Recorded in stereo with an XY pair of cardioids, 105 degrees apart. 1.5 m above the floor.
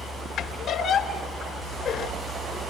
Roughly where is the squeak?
Left.